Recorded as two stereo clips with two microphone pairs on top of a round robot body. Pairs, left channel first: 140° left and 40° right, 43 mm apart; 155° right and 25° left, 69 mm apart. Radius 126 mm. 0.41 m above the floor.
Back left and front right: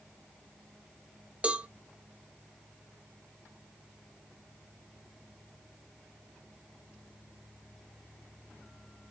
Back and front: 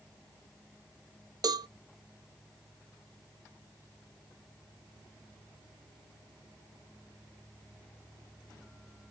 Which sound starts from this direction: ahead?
A cowbell, at 1.4 s.